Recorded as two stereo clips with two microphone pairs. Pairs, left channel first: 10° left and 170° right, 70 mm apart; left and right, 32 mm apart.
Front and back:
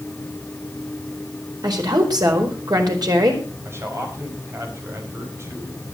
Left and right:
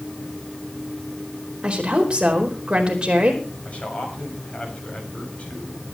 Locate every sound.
1.6 s a woman speaking: 145° right, 4.5 m
3.6 s a man speaking: 140° left, 6 m